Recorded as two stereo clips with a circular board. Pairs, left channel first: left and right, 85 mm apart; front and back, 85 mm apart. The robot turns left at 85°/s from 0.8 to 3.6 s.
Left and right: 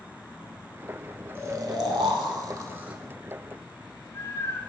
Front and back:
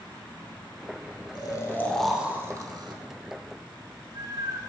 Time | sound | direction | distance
1.4 | snoring | 30° right | 0.7 m